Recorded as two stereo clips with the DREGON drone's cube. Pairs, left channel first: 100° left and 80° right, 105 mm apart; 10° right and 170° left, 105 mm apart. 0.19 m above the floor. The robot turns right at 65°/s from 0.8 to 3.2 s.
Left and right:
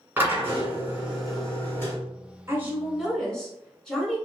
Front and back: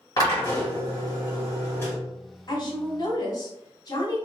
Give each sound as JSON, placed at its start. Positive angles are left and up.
{"t": 0.2, "sound": "a drill", "azimuth_deg": -20, "distance_m": 1.8}
{"t": 2.5, "sound": "a woman speaking", "azimuth_deg": -30, "distance_m": 1.3}